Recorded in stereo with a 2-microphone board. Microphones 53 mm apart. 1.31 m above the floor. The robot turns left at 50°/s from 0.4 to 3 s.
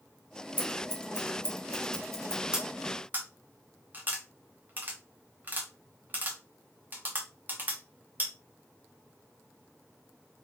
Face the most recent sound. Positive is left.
turn(degrees=-35)  # may be behind; listen again after turning